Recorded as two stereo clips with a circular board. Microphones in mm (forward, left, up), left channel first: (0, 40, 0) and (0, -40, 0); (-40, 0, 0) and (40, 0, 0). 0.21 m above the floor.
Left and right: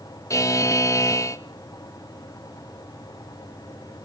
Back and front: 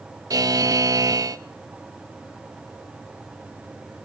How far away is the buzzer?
About 0.6 m.